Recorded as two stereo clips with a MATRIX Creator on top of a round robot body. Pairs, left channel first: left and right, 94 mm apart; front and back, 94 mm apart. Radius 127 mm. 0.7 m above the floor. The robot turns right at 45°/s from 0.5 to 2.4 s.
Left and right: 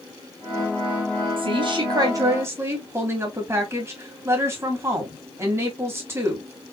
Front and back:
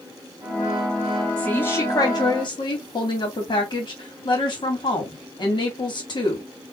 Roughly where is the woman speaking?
Right.